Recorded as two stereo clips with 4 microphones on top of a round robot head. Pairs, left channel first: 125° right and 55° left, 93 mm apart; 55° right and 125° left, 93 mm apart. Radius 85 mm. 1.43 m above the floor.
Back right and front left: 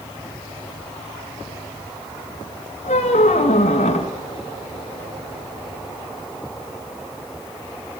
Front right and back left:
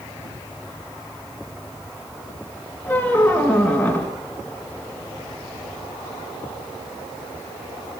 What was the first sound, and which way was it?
A squeak, 130° right.